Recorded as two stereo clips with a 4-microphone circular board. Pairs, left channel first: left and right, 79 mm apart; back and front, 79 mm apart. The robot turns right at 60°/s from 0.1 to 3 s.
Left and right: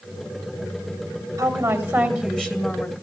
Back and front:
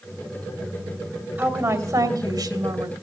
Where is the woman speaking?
50° right, 2 m; by 2.9 s 45° left, 2 m.